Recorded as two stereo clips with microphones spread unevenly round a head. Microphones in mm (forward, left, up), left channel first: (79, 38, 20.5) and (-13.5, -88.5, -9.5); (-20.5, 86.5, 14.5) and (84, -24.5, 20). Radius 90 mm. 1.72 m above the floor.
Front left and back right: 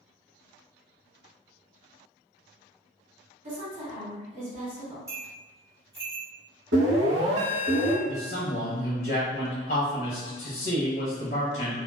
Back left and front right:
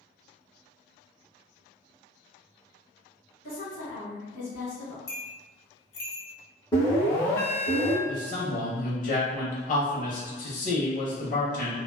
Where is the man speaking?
100° left, 0.8 m.